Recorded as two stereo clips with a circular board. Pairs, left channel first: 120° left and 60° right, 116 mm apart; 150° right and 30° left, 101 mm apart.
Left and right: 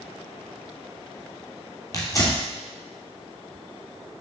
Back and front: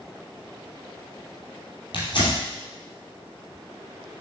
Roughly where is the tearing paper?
Behind.